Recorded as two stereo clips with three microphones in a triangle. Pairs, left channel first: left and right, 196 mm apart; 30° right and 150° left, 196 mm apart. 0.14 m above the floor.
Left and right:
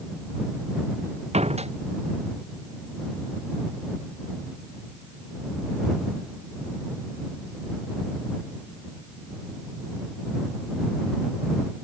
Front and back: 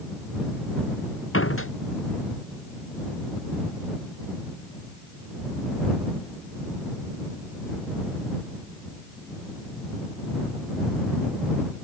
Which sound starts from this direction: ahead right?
A door slam, at 1.3 s.